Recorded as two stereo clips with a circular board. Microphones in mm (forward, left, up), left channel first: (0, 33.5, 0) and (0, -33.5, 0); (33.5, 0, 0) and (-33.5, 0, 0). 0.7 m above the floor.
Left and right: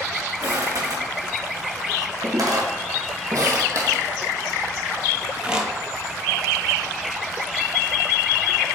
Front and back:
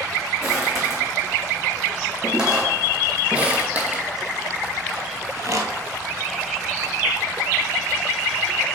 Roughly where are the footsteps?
Right.